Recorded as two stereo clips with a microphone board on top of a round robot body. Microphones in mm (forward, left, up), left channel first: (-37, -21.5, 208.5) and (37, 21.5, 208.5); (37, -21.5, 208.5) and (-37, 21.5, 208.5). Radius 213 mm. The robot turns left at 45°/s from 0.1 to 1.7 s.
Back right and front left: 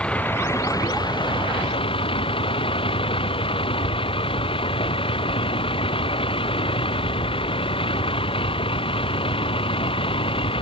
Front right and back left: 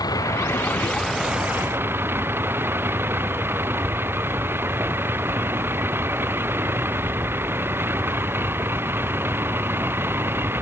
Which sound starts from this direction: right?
A vehicle, at 0.0 s.